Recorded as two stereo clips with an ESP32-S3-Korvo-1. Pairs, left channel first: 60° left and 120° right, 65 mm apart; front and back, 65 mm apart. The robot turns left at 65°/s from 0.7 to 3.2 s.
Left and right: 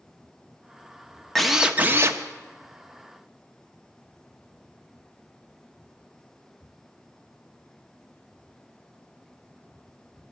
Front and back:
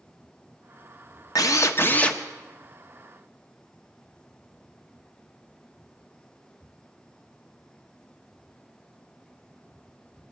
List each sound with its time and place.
1.4 s a drill: 25° right, 0.9 m; by 2.2 s 80° right, 0.9 m